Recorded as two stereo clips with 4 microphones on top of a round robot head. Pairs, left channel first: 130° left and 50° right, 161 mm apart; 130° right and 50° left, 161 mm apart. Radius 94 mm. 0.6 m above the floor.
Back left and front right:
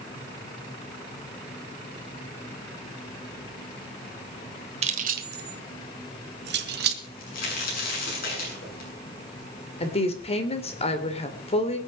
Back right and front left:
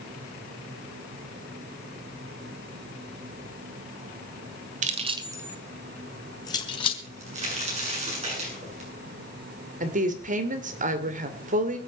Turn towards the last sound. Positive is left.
turn(degrees=80)